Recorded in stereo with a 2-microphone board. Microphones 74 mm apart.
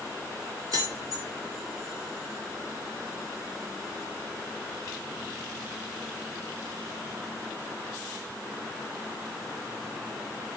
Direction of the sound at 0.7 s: 55° right (ahead or behind).